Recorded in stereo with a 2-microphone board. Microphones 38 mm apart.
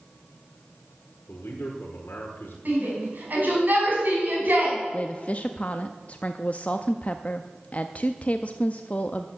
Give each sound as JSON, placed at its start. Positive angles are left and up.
{"t": 1.3, "sound": "a man speaking", "side_deg": 70, "distance_m": 1.8}
{"t": 2.6, "sound": "a shout", "side_deg": -55, "distance_m": 5.0}
{"t": 4.9, "sound": "a woman speaking", "side_deg": 40, "distance_m": 0.5}